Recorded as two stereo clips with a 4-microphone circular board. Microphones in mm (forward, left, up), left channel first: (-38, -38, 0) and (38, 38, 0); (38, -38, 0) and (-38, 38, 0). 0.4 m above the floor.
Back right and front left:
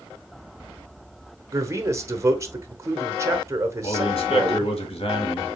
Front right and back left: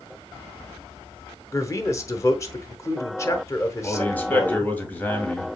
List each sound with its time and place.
1.5 s a man speaking: straight ahead, 1.0 m
3.8 s a man speaking: 120° right, 1.9 m